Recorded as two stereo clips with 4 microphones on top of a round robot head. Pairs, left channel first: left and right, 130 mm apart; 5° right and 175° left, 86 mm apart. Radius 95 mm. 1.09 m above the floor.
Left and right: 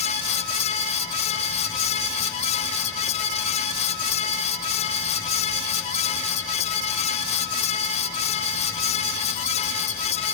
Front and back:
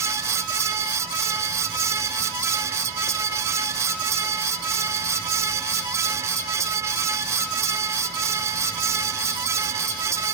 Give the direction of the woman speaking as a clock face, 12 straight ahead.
No woman speaking in this recording.